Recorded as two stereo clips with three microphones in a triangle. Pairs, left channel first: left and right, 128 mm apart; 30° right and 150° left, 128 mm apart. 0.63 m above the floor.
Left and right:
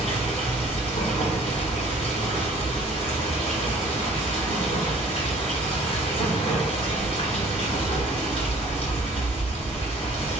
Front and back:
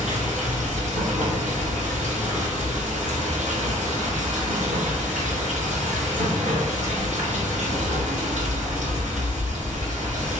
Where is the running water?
130° left, 1.8 m.